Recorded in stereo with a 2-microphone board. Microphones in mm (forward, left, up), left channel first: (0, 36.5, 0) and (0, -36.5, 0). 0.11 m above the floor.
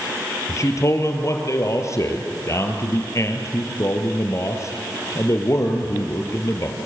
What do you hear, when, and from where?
0.5 s a man speaking: 45° left (ahead or behind), 2.5 m